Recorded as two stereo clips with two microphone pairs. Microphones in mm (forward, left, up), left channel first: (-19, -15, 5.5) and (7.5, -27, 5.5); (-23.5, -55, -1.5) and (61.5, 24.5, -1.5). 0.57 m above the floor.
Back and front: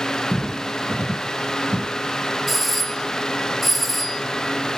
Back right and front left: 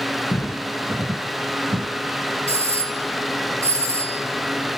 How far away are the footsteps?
About 0.6 m.